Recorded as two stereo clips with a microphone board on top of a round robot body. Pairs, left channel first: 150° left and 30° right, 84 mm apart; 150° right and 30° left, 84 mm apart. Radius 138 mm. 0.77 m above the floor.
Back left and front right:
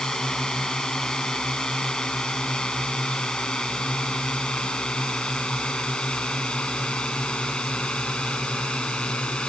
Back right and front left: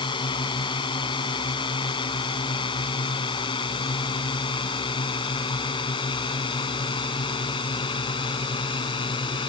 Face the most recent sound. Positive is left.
turn(degrees=-130)